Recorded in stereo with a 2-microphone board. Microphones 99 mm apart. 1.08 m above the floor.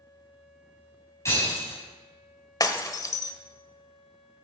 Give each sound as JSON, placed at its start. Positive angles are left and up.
{"t": 1.2, "sound": "breaking glass", "side_deg": 30, "distance_m": 5.5}
{"t": 2.6, "sound": "breaking glass", "side_deg": 40, "distance_m": 1.2}